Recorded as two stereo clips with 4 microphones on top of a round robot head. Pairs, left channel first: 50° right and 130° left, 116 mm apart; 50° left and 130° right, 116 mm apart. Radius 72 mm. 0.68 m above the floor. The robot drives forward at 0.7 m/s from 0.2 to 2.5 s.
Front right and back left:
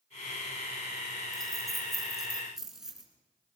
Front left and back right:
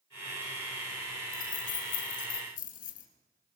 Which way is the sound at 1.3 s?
40° left.